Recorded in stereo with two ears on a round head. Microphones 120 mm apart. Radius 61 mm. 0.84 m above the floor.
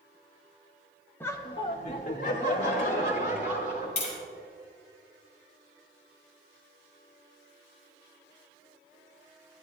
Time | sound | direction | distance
1.2 | laughter | 15° left (ahead or behind) | 1.0 m
4.0 | tapping | 55° left (ahead or behind) | 3.5 m